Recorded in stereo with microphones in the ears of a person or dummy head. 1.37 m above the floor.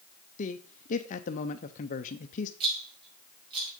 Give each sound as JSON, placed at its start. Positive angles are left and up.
{"t": 0.4, "sound": "a man speaking", "side_deg": 40, "distance_m": 0.6}
{"t": 2.6, "sound": "a rattle", "side_deg": -30, "distance_m": 4.5}